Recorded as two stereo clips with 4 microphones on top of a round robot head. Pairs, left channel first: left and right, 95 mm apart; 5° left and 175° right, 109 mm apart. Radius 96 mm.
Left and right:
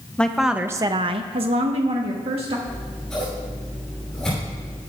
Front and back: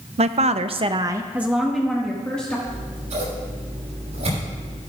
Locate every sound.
0.2 s a woman speaking: 170° left, 0.8 m; by 2.6 s 70° right, 1.7 m
2.7 s scissors: 175° left, 6 m